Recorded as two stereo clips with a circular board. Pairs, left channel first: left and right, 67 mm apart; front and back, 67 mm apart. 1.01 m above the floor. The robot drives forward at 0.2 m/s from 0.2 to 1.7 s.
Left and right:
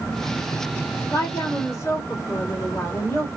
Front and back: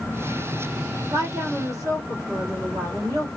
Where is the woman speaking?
140° left, 1.8 m.